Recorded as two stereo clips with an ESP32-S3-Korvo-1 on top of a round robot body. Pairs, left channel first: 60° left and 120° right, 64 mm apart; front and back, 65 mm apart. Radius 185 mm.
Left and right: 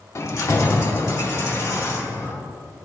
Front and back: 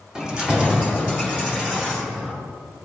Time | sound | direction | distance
0.1 | keys jangling | 105° left | 1.0 m